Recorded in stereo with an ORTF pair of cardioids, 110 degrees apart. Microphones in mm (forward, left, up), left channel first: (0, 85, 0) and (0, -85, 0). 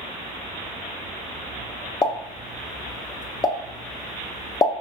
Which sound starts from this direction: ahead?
A pop, at 2.0 s.